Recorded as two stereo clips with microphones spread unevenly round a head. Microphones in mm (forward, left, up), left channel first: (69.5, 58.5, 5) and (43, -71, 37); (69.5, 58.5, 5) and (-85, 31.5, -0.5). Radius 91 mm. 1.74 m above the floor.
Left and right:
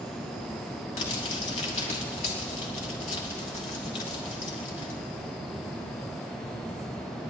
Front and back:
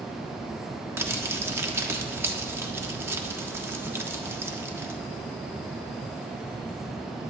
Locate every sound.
1.0 s crumpling: 120° left, 1.4 m